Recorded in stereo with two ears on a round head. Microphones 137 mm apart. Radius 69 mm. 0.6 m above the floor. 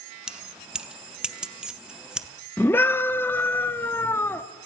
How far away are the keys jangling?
About 0.5 m.